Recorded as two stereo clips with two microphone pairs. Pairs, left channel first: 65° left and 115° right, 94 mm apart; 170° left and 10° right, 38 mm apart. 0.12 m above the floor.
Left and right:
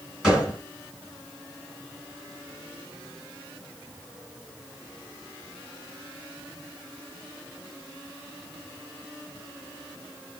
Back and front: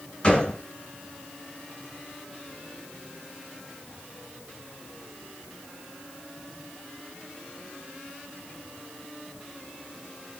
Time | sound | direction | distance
0.2 | a gunshot | 165° left | 1.8 m